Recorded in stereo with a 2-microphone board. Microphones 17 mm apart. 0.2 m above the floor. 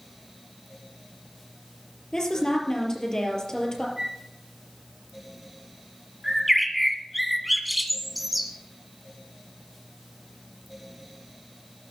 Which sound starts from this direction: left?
A woman speaking, at 2.1 s.